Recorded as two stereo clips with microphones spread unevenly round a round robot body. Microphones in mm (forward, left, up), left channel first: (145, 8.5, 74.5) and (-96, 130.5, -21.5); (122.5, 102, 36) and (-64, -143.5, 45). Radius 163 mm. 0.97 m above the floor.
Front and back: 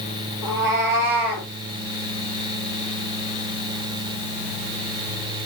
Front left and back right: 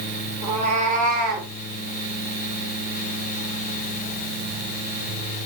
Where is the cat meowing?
160° left, 4 m; by 1.5 s 175° left, 2.5 m.